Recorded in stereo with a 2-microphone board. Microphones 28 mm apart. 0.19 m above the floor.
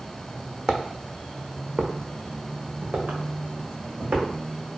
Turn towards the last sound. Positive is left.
turn(degrees=-85)